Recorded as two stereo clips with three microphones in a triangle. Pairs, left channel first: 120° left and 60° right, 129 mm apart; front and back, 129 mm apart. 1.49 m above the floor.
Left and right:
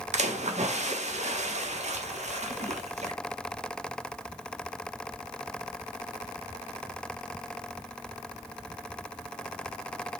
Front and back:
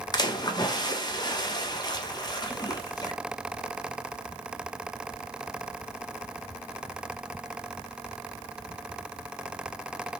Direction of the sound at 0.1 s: 55° right.